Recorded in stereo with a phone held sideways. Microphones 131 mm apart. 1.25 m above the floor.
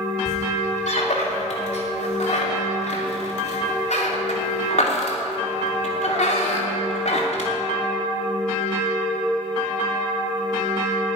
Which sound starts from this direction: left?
A squeak, at 0.2 s.